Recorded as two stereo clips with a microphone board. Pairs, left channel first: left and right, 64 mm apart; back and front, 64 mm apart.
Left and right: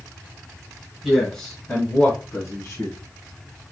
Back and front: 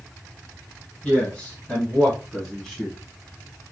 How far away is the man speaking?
About 1.2 m.